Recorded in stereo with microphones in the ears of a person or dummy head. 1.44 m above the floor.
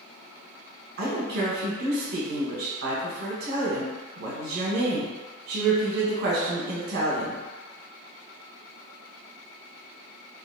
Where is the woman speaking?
65° right (ahead or behind), 0.8 m.